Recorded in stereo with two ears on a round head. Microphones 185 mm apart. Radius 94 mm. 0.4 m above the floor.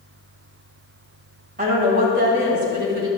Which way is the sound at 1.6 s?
40° right (ahead or behind).